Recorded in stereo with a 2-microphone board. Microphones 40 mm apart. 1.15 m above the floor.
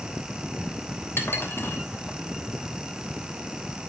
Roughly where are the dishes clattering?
Left.